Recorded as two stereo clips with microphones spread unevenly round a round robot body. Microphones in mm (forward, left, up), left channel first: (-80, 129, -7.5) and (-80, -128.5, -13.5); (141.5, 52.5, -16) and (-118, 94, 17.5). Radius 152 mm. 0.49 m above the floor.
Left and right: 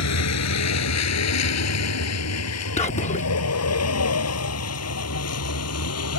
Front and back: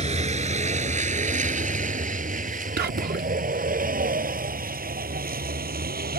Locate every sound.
0.0 s a vehicle: 105° left; by 6.2 s 115° left
2.8 s whispering: 135° left